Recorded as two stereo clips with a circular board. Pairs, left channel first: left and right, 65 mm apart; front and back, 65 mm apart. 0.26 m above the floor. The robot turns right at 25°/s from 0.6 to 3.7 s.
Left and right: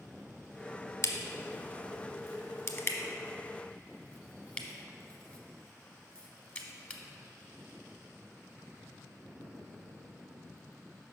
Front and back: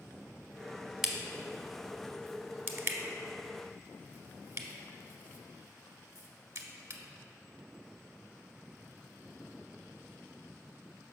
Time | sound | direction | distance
1.0 | a crack | 95° left | 0.8 m